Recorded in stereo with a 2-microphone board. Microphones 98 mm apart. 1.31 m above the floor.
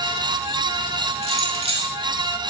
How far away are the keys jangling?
About 2 m.